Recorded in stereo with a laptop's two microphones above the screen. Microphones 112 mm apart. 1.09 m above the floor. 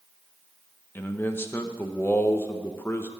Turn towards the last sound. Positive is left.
turn(degrees=20)  # may be behind; listen again after turning